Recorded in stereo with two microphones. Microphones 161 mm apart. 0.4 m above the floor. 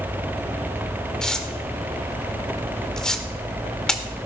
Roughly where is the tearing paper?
Centre.